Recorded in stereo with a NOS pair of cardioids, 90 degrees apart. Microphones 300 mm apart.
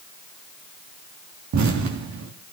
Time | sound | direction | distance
1.5 | an explosion | 65° right | 3 m